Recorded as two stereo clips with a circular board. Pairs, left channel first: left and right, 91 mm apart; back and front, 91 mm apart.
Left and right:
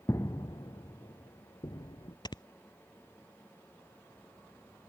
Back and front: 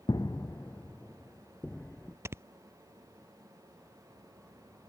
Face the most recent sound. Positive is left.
turn(degrees=60)